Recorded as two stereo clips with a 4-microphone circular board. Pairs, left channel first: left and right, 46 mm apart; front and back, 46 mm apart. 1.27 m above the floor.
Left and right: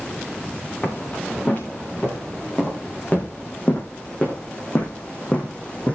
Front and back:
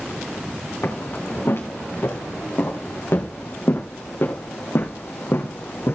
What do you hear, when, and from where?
0.8 s footsteps: 35° left, 6.5 m; by 6.0 s 30° left, 3.5 m